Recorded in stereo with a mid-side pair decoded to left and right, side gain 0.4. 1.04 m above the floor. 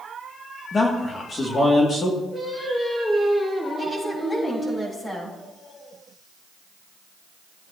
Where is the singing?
25° left, 4.5 m.